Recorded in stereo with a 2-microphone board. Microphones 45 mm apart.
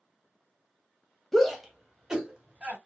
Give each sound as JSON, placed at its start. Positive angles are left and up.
{"t": 1.3, "sound": "a shout", "side_deg": 5, "distance_m": 1.2}